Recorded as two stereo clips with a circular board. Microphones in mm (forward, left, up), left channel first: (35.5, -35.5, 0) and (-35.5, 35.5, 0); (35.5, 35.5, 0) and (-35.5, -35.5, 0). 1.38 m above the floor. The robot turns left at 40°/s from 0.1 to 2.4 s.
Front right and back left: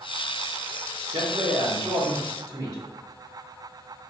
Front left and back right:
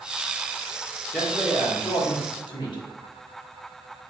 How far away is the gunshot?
No gunshot in this recording.